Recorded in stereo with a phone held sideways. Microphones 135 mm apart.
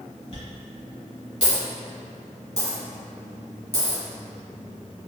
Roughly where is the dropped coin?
Left.